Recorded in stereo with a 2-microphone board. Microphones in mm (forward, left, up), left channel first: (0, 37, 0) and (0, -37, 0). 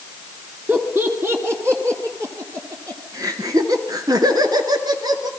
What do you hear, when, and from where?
0.7 s laughter: 30° right (ahead or behind), 3 m; by 5.3 s 70° right (ahead or behind), 3 m